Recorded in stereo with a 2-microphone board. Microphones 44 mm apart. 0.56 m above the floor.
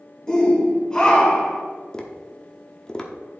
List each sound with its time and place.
0.3 s a shout: 15° left (ahead or behind), 2 m
1.9 s tapping: 15° left (ahead or behind), 1.0 m